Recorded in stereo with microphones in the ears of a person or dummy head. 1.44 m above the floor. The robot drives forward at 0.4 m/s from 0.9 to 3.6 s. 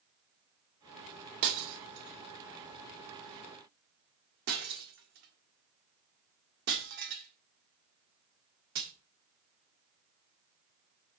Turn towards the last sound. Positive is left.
turn(degrees=-50)  # may be behind; listen again after turning